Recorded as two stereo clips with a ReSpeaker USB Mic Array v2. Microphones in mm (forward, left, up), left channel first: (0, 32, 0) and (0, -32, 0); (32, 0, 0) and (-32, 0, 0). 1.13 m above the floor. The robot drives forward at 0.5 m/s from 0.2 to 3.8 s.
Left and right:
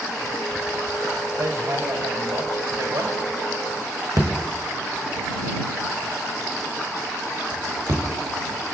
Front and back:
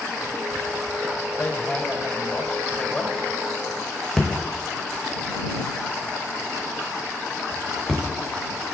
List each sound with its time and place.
1.4 s hammering: 60° right, 3 m; by 8.0 s 85° right, 3 m